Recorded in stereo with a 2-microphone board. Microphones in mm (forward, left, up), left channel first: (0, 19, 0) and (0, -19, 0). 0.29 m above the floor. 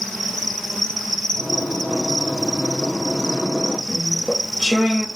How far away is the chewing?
About 1.1 m.